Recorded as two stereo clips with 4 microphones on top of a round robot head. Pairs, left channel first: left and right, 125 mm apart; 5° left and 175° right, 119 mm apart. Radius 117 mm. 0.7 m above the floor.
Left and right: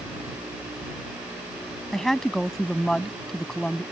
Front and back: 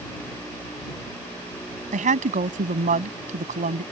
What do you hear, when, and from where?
1.9 s a woman speaking: 175° left